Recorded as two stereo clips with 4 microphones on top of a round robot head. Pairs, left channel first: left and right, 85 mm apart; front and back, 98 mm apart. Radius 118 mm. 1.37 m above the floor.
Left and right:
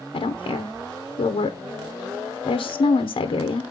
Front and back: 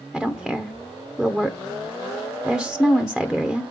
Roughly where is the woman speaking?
Left.